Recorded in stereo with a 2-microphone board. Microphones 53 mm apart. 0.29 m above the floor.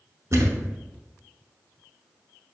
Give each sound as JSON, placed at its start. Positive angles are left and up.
{"t": 0.3, "sound": "a thud", "side_deg": -60, "distance_m": 0.8}